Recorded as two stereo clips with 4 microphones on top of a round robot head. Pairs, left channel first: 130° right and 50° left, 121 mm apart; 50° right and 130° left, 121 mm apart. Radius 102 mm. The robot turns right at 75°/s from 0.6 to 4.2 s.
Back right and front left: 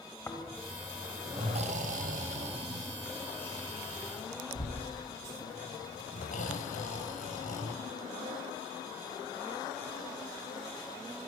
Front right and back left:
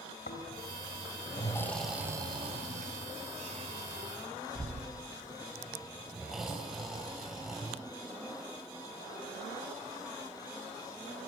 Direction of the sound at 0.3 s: 55° right.